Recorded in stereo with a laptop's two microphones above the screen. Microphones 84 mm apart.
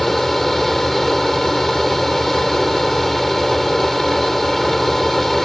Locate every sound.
0.0 s a fan: centre (ahead or behind)